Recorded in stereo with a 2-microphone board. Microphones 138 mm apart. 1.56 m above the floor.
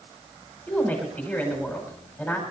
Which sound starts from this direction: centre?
A woman speaking, at 0.7 s.